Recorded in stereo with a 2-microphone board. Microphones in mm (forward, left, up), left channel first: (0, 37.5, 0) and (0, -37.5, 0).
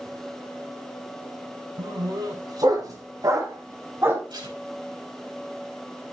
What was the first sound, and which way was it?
A dog barking, 70° right (ahead or behind).